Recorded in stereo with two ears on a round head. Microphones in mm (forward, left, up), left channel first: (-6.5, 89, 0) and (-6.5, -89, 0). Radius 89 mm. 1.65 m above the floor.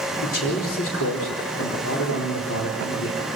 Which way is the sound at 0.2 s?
65° left (ahead or behind).